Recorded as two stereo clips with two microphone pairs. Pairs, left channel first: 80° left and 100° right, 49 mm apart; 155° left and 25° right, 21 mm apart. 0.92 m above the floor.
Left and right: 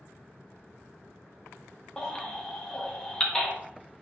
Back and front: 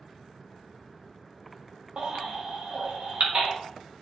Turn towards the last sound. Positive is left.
turn(degrees=5)